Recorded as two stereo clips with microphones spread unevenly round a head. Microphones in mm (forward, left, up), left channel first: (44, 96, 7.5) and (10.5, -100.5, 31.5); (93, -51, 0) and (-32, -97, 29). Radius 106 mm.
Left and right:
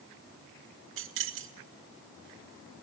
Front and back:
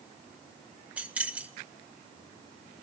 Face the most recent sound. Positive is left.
turn(degrees=-85)